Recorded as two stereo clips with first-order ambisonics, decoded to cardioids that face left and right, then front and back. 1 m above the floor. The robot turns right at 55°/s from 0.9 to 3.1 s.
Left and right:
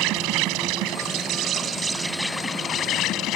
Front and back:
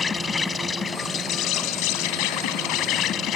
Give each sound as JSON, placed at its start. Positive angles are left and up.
{"t": 0.0, "sound": "an insect", "azimuth_deg": -70}